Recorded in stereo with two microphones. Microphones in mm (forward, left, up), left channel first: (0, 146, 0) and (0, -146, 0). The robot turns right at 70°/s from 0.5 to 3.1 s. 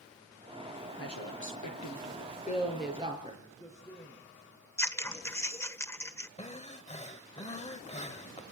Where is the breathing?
25° left (ahead or behind), 1.1 m.